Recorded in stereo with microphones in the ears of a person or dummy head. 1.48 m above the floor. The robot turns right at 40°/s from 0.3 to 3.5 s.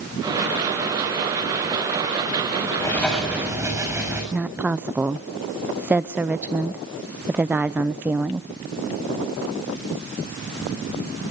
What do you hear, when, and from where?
2.8 s writing: 15° left (ahead or behind), 7 m; by 4.2 s 10° right (ahead or behind), 7 m
4.3 s a woman speaking: 10° right (ahead or behind), 0.6 m